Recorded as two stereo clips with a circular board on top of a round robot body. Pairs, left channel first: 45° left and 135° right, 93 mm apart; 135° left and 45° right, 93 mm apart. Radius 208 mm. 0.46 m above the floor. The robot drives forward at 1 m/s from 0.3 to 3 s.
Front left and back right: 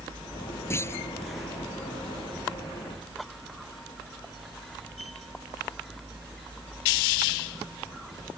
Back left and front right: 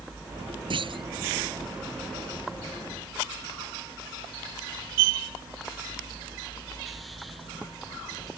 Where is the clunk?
20° right.